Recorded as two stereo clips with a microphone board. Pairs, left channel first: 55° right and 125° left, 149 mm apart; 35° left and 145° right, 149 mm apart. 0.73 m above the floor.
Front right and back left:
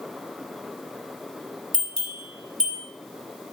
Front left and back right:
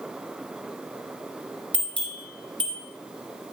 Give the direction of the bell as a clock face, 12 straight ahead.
8 o'clock.